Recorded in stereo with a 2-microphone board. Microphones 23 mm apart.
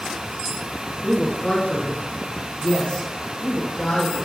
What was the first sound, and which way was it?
A man speaking, 40° left (ahead or behind).